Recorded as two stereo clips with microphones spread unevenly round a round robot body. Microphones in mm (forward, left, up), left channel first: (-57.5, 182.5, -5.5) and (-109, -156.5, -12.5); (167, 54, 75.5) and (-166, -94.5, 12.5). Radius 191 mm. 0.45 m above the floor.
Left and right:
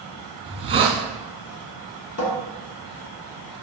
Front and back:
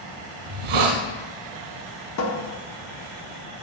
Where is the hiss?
170° right, 1.8 m.